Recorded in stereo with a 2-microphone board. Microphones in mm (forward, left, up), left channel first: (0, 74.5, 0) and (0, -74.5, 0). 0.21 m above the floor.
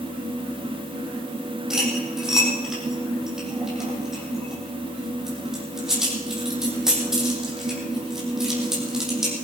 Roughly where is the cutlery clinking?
Centre.